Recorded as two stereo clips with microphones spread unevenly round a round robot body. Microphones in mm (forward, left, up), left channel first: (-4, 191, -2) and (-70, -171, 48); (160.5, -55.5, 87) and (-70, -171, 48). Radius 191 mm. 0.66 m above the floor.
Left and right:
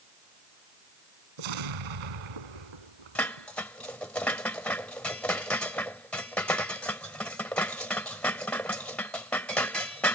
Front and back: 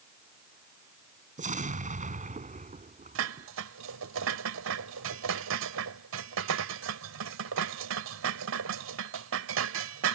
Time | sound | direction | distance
1.4 | an explosion | 95° right | ?
3.1 | dishes clattering | 165° left | ?